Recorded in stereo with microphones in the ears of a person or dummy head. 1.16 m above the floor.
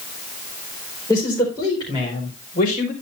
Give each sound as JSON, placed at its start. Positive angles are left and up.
{"t": 1.1, "sound": "a man speaking", "side_deg": 15, "distance_m": 4.5}